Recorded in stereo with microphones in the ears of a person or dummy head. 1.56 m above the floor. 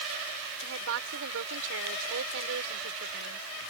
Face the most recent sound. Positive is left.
turn(degrees=-75)  # may be behind; listen again after turning